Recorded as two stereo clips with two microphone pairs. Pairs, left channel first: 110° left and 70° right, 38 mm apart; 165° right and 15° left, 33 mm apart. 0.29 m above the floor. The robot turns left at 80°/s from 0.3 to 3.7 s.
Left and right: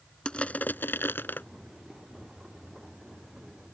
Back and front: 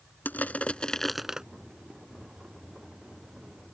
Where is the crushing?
175° left; by 1.4 s 85° left.